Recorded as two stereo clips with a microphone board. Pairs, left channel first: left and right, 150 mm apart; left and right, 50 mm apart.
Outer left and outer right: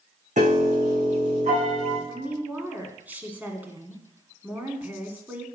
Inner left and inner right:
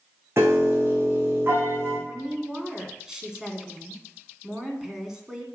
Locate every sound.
0.4 s a piano: 55° right (ahead or behind), 5 m
2.1 s a woman speaking: 10° right (ahead or behind), 1.7 m